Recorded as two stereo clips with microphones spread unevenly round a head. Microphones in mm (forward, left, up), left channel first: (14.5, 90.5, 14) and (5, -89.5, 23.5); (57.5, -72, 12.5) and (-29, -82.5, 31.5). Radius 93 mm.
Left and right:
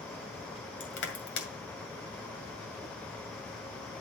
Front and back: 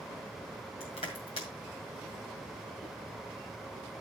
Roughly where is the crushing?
Left.